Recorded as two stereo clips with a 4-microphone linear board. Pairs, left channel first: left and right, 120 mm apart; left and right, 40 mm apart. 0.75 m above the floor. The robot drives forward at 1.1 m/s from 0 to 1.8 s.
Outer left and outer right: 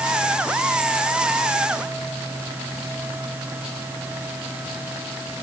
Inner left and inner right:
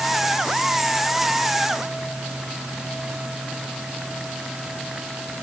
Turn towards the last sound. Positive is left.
No sound to turn to.